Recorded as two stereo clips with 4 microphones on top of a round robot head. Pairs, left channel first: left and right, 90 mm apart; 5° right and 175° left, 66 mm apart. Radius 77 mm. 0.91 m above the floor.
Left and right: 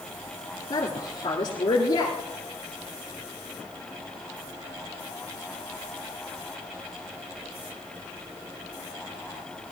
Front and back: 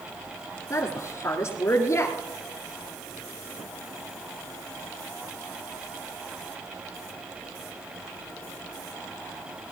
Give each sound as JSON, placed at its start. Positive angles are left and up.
{"t": 0.7, "sound": "a woman speaking", "azimuth_deg": 40, "distance_m": 2.0}